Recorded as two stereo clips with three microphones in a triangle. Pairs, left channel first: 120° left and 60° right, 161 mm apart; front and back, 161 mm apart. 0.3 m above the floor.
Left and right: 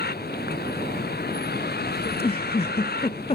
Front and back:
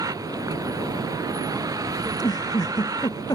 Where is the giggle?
65° left.